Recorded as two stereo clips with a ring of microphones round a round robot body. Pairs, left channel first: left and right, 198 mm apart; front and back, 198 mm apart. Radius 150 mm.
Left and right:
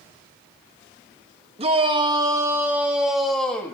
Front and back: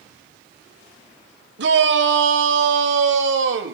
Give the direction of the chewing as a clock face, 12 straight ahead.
No chewing in this recording.